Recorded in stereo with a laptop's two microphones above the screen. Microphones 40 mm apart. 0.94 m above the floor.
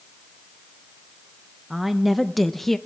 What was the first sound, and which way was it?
A woman speaking, 10° right (ahead or behind).